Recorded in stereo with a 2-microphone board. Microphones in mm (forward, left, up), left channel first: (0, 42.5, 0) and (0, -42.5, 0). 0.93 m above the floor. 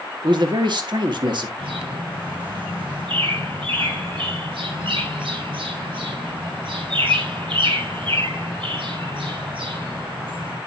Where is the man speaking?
60° right (ahead or behind), 2.0 m.